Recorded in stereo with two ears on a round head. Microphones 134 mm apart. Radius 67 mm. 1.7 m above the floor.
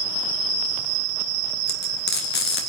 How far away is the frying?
About 3 m.